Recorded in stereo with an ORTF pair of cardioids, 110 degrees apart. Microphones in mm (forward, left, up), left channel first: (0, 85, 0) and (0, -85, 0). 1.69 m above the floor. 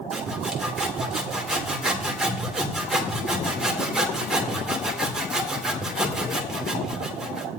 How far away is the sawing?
About 2.5 m.